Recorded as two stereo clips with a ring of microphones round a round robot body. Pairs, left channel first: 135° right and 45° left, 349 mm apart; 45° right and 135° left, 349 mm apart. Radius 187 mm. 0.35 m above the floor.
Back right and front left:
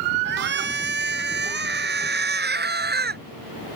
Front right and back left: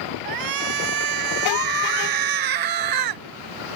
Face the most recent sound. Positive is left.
turn(degrees=110)